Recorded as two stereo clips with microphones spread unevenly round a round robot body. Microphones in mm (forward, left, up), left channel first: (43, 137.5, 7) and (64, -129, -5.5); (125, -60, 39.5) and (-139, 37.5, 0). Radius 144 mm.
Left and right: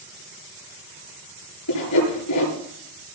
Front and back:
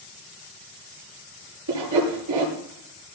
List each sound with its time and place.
1.7 s sawing: 130° left, 8 m